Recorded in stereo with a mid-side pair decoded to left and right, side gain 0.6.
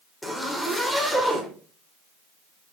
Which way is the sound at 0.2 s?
5° left.